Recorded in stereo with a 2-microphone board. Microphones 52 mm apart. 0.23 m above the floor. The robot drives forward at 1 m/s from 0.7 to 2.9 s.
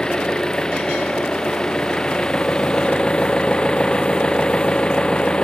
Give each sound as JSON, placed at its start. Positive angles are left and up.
{"t": 0.0, "sound": "an engine running", "side_deg": 15}